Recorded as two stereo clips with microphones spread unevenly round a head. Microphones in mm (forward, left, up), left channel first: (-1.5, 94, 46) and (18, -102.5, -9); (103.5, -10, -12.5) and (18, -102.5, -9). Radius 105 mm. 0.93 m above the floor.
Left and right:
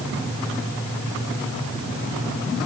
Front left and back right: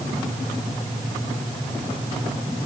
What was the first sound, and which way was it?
Only background noise.